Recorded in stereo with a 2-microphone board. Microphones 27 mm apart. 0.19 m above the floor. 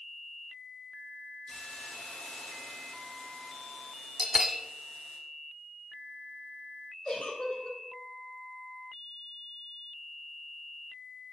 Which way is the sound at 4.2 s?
15° right (ahead or behind).